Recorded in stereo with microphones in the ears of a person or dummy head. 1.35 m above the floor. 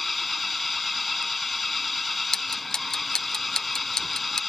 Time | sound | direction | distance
0.0 | an engine running | centre (ahead or behind) | ?
2.3 | ticking | 5° left (ahead or behind) | ?